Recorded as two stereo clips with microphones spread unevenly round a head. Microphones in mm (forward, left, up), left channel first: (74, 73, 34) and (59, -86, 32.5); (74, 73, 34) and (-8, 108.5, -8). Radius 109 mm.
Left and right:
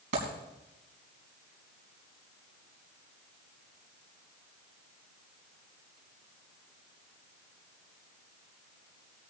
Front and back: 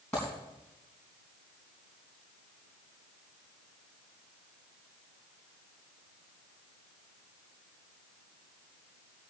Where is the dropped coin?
100° right, 4 m.